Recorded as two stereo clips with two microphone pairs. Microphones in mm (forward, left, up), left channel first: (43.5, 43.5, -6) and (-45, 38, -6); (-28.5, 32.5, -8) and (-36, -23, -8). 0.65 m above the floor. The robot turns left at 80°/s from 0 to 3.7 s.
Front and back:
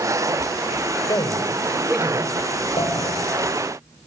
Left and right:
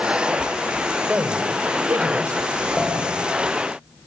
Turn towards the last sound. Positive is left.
turn(degrees=-85)